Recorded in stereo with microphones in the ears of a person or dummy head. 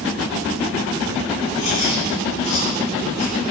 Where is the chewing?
65° left (ahead or behind), 9 m.